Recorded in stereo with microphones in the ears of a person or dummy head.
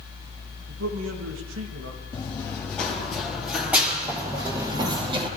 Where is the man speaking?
85° right, 2.5 m.